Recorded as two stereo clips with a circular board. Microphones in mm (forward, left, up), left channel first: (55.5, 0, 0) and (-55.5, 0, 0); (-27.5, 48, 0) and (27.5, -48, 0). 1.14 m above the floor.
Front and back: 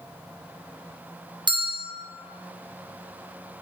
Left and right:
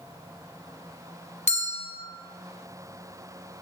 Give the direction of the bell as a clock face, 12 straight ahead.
8 o'clock.